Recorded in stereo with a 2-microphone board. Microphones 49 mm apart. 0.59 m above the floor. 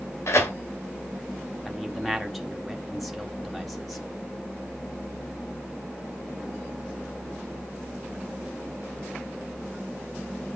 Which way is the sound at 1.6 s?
Centre (ahead or behind).